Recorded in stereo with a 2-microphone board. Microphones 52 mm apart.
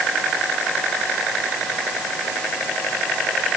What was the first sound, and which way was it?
Only background noise.